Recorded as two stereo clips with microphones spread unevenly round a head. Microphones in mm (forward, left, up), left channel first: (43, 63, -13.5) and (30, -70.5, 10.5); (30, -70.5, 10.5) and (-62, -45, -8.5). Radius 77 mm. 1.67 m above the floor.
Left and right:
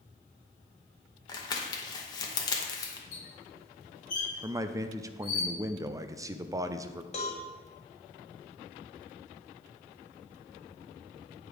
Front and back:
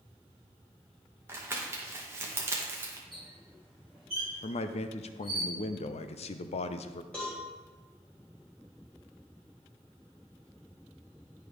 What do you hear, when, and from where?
1.3 s crumpling: 115° left, 0.8 m
3.1 s a squeak: 65° left, 2.5 m
4.4 s a man speaking: 25° right, 0.5 m
7.1 s a cowbell: 55° left, 1.4 m